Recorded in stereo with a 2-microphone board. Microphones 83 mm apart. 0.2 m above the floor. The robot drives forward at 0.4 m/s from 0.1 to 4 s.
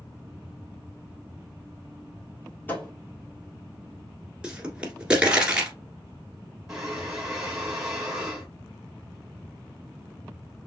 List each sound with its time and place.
2.7 s a thud: 20° left (ahead or behind), 1.7 m
4.4 s a pop: 10° right (ahead or behind), 1.6 m
6.7 s breathing: 5° right (ahead or behind), 2.5 m